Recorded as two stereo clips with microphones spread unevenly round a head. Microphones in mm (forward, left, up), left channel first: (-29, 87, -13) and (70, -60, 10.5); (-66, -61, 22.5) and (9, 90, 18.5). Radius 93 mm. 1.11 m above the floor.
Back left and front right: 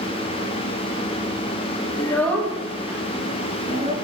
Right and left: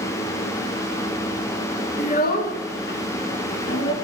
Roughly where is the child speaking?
Behind.